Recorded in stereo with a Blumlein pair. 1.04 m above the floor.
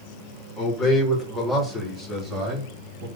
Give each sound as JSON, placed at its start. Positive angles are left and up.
{"t": 0.6, "sound": "a man speaking", "azimuth_deg": 30, "distance_m": 3.0}